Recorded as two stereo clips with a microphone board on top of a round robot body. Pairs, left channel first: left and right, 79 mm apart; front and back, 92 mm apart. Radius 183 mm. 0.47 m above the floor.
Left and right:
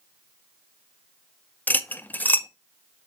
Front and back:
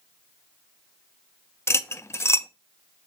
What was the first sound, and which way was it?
Cutlery clinking, 35° left.